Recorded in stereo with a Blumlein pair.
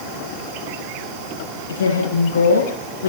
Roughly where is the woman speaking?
Left.